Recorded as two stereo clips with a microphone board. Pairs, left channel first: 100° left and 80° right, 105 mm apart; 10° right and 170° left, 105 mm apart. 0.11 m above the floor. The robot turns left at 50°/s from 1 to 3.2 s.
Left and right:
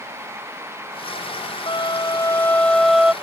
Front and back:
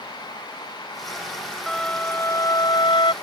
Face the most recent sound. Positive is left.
turn(degrees=0)